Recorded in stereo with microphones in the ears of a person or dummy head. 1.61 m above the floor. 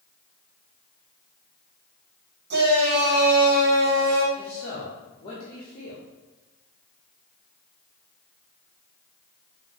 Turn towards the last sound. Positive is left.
turn(degrees=25)  # may be behind; listen again after turning